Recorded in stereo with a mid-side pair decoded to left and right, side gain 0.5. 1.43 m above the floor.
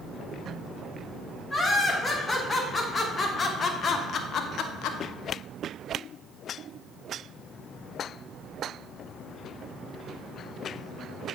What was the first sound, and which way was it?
Laughter, 25° left.